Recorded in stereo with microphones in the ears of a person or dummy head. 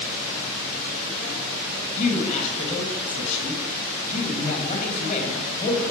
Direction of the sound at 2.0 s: 50° left (ahead or behind).